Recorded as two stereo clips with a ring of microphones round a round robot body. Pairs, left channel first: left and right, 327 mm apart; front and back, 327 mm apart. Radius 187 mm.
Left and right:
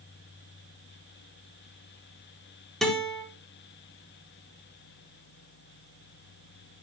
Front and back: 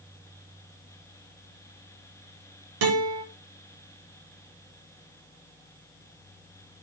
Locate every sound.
2.8 s a guitar: straight behind, 6 m